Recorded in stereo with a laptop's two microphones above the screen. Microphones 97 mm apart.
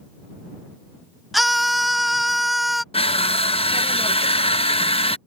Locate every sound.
1.3 s a scream: centre (ahead or behind)
2.9 s crushing: 75° left (ahead or behind)